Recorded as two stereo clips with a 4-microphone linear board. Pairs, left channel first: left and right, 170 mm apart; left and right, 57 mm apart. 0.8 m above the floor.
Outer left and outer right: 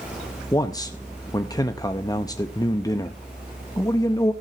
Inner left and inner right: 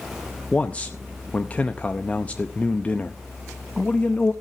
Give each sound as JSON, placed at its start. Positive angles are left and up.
{"t": 0.5, "sound": "a man speaking", "side_deg": 20, "distance_m": 0.7}